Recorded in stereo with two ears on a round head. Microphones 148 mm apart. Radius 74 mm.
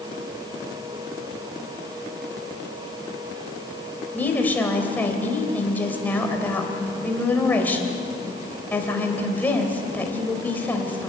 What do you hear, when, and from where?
4.1 s a woman speaking: 10° left (ahead or behind), 3 m